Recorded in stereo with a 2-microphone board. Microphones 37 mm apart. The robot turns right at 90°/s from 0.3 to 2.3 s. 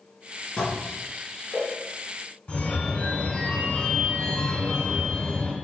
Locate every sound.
0.6 s dishes clattering: 25° left (ahead or behind), 3 m; by 1.7 s 75° right (ahead or behind), 3 m
2.5 s a phone ringing: 25° left (ahead or behind), 2.5 m